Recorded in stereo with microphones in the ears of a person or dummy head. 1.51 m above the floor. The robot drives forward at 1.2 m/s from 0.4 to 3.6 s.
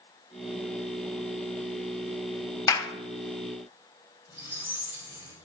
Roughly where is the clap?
Centre.